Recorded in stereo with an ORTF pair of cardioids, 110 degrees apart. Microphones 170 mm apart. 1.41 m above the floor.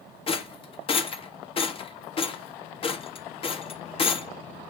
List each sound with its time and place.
0.3 s a rattle: 35° left, 0.7 m